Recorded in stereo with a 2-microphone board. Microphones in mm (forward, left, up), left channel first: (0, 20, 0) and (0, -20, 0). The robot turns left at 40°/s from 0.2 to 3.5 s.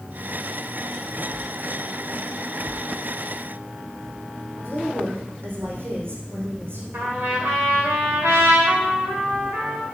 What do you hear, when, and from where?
4.6 s a woman speaking: 75° right (ahead or behind), 4 m
6.9 s a trumpet: 65° right (ahead or behind), 4 m